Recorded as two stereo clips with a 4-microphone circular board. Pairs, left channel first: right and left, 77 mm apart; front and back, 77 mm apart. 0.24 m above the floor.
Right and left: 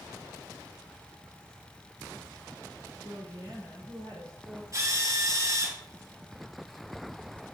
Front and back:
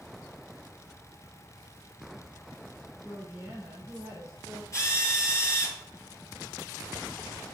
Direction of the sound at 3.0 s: 100° left.